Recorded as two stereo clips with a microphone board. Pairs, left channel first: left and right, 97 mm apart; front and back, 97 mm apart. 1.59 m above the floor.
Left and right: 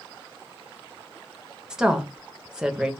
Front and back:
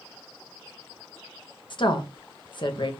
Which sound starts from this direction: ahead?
A woman speaking, at 1.7 s.